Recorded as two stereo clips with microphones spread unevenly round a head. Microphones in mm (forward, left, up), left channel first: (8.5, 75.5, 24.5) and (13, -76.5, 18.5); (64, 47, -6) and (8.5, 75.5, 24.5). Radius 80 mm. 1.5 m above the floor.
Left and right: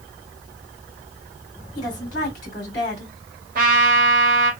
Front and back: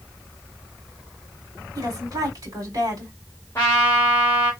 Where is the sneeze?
I don't hear a sneeze.